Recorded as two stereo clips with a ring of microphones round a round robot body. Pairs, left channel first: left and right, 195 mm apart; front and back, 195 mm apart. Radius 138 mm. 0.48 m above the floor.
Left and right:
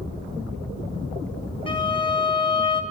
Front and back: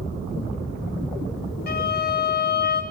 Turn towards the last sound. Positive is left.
turn(degrees=30)